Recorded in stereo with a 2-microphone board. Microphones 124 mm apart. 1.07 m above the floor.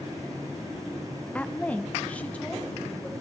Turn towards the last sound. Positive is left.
turn(degrees=10)  # may be behind; listen again after turning